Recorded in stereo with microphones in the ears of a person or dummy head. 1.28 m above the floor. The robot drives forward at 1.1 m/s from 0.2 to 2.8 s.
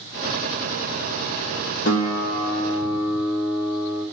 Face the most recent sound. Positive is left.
turn(degrees=20)  # may be behind; listen again after turning